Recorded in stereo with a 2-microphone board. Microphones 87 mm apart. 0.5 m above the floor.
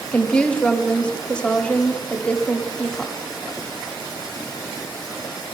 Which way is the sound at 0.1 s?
10° left (ahead or behind).